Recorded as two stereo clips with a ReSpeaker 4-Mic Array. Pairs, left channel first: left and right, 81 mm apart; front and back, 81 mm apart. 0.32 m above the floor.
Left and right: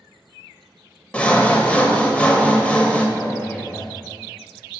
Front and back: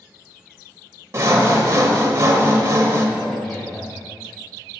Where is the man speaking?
80° left, 1.4 m.